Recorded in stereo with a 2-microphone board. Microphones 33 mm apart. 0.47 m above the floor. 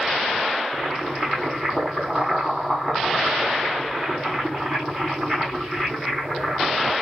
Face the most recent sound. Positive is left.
turn(degrees=-5)  # may be behind; listen again after turning